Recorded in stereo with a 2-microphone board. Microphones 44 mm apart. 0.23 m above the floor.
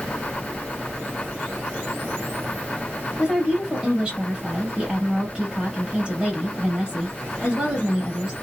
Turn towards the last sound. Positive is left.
turn(degrees=-20)  # may be behind; listen again after turning